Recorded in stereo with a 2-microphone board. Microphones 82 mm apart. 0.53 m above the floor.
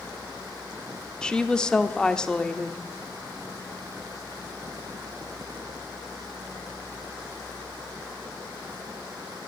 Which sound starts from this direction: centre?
A woman speaking, at 1.2 s.